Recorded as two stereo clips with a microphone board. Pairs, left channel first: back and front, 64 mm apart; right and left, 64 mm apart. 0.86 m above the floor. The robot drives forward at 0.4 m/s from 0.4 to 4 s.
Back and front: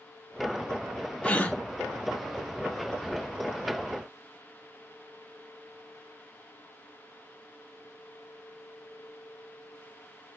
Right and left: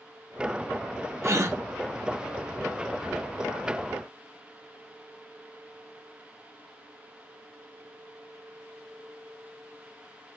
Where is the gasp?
115° left, 1.6 m; by 1.6 s 120° left, 1.7 m.